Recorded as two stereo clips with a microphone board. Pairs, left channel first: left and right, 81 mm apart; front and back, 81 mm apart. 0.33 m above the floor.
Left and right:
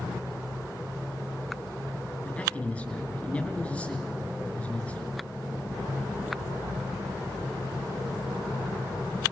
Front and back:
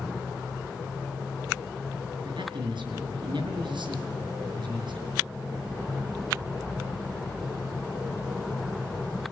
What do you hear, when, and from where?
2.2 s a man speaking: 165° left, 4.5 m